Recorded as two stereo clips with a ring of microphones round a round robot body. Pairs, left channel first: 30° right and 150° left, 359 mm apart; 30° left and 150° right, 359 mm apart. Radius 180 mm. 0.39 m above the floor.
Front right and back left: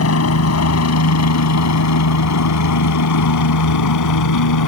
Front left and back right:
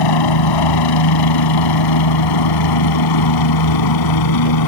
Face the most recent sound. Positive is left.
turn(degrees=5)